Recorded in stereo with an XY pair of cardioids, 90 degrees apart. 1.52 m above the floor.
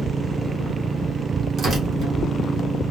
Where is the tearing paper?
60° right, 1.9 m.